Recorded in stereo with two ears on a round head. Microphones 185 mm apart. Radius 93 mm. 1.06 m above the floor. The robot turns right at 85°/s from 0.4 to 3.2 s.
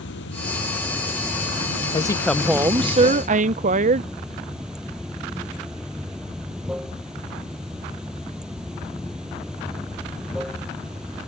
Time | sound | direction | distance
0.0 | running water | 120° left | ?
1.9 | a woman speaking | 140° left | ?